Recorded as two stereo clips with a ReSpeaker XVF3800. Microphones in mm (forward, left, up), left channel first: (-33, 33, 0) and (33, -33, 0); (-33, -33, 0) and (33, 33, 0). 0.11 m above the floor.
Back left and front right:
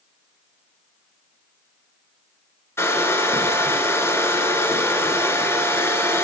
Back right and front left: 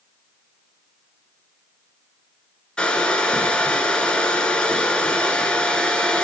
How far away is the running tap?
No running tap in this recording.